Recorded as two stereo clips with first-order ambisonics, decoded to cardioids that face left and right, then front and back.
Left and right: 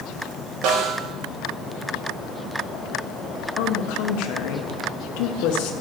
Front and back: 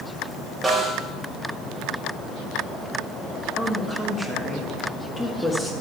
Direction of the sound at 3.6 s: 85° left.